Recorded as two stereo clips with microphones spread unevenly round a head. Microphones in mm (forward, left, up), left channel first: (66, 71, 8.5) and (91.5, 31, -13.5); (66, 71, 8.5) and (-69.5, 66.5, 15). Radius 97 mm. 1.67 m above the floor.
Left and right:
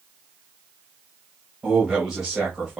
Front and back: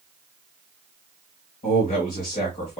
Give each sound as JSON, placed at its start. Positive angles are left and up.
{"t": 1.6, "sound": "a man speaking", "azimuth_deg": 20, "distance_m": 1.8}